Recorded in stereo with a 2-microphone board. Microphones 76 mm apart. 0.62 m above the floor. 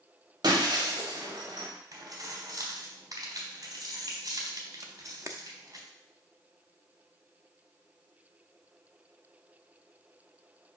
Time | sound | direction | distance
0.4 | breaking glass | 70° right (ahead or behind) | 1.6 m
1.9 | keys jangling | 55° right (ahead or behind) | 3.5 m
4.8 | a camera shutter | 40° right (ahead or behind) | 0.7 m